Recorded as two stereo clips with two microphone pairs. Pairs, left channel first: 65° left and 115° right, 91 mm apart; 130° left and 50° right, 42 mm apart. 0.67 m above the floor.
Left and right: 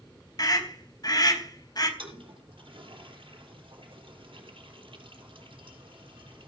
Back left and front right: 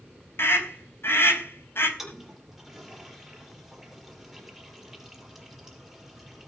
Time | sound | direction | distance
0.4 | a scream | 105° left | 4.5 m
2.0 | a toilet flushing | 135° right | 4.5 m